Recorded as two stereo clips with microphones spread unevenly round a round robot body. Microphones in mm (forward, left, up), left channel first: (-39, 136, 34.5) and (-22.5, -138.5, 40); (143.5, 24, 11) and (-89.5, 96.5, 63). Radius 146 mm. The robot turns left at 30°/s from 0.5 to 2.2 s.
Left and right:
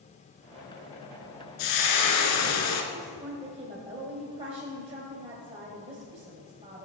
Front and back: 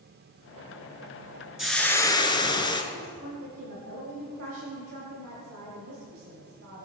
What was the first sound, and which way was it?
Frying, 75° left.